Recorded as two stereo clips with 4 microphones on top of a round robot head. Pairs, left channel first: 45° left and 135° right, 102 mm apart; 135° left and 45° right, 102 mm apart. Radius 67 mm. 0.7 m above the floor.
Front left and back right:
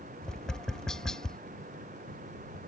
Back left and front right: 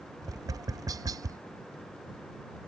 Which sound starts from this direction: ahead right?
Tapping, at 0.2 s.